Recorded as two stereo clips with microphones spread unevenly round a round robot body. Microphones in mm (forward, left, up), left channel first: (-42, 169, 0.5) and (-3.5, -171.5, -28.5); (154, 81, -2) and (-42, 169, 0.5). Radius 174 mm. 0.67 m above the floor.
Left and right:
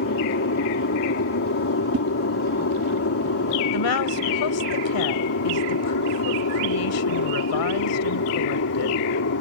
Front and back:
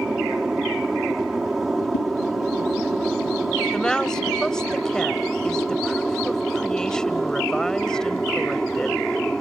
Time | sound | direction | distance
0.0 | an aircraft | 70° left | ?
1.9 | a whoosh | 45° right | ?
3.7 | a woman speaking | 65° left | ?